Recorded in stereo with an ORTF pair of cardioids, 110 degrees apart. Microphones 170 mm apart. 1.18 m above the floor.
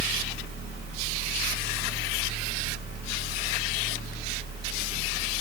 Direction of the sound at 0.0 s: 65° right.